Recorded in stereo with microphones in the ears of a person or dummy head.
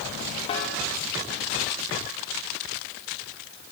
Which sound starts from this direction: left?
A snare drum, at 0.5 s.